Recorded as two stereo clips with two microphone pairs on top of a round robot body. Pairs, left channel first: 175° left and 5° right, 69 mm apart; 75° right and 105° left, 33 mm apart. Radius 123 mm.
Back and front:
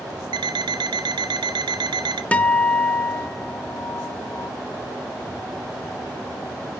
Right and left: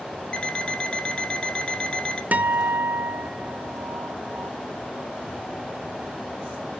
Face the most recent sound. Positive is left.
turn(degrees=110)